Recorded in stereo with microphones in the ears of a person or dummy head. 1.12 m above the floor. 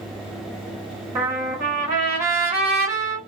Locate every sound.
1.1 s a trumpet: 15° right (ahead or behind), 1.1 m